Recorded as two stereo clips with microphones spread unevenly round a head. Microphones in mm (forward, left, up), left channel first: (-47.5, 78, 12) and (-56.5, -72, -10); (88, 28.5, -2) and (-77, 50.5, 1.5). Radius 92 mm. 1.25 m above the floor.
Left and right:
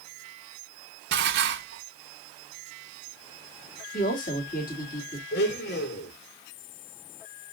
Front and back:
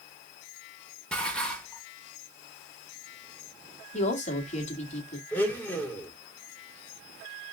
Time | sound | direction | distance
1.1 | dishes clattering | 95° right | 1.2 m
3.9 | a woman speaking | 40° left | 2.5 m
5.3 | a blender | 70° left | 2.5 m